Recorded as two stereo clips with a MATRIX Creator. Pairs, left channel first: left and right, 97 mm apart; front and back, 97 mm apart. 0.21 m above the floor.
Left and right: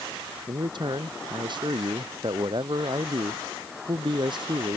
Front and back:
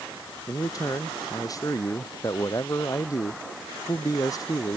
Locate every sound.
0.5 s a man speaking: 55° right